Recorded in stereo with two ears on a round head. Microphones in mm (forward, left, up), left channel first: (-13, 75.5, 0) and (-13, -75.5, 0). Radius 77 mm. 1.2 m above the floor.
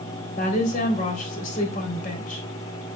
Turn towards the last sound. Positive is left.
turn(degrees=50)  # may be behind; listen again after turning